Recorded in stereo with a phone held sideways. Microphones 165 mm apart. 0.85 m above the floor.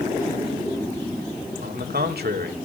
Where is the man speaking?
75° right (ahead or behind), 2 m.